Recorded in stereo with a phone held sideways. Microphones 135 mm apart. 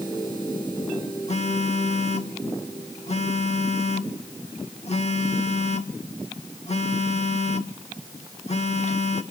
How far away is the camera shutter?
No camera shutter in this recording.